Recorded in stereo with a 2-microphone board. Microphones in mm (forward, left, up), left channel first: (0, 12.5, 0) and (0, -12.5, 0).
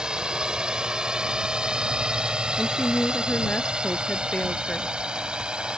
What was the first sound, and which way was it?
A drone, 40° right (ahead or behind).